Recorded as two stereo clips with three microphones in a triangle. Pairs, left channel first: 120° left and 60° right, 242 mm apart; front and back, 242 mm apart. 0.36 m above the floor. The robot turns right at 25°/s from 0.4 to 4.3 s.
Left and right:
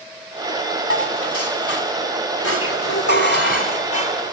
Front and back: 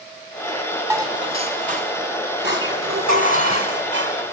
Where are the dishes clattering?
100° left, 2 m; by 4.3 s 175° right, 2 m.